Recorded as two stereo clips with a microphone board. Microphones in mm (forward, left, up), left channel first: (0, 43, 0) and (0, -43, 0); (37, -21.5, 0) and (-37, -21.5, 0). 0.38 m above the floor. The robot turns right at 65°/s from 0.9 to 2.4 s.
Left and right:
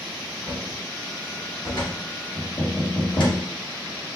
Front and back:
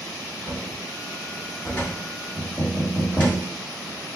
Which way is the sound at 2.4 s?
95° left.